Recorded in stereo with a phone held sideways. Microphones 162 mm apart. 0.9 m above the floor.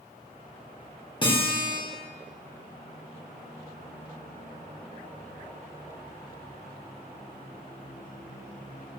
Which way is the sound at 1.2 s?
30° left (ahead or behind).